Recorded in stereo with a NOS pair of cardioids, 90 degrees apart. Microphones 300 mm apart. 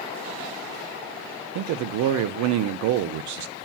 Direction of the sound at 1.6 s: 70° right.